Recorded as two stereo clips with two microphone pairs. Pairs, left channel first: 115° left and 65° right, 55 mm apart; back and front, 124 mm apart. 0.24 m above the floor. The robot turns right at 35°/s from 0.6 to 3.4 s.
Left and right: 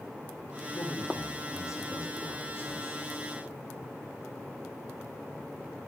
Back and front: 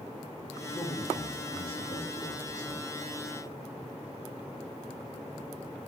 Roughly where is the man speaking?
Left.